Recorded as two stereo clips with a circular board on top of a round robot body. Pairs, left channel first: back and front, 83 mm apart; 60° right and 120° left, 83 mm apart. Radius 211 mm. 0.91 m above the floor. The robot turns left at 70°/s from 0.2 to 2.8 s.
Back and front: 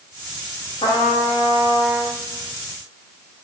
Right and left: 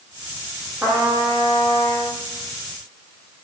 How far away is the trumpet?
About 0.6 m.